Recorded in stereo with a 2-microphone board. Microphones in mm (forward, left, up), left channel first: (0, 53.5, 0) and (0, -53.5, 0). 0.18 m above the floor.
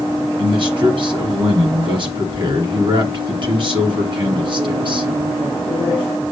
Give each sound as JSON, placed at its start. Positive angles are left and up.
{"t": 0.4, "sound": "a man speaking", "side_deg": -50, "distance_m": 2.5}